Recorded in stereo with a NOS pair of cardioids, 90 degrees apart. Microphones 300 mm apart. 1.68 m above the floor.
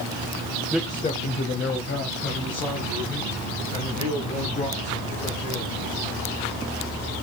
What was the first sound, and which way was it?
A man speaking, 5° right.